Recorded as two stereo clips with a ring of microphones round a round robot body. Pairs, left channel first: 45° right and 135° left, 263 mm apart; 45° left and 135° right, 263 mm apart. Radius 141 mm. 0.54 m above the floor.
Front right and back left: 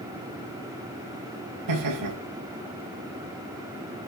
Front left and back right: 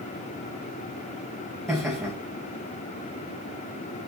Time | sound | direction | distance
1.7 | laughter | 135° left | 4.5 m